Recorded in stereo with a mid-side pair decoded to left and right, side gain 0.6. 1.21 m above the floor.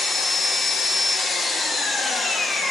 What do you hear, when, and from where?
0.0 s an engine running: 15° left, 1.3 m